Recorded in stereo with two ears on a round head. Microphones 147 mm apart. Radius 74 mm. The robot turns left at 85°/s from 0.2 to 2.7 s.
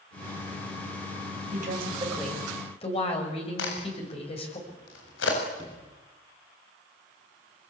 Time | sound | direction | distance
1.5 | a woman speaking | 115° right | 7 m
3.6 | a crack | 80° left | 7.5 m
5.6 | a sliding door | 25° left (ahead or behind) | 6.5 m